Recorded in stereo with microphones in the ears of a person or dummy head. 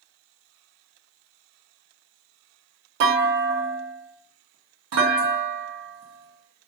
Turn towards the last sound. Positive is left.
turn(degrees=-65)  # may be behind; listen again after turning